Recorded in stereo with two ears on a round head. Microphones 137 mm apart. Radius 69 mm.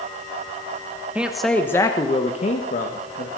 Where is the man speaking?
10° right (ahead or behind), 1.1 m; by 3.3 s 65° left (ahead or behind), 1.8 m.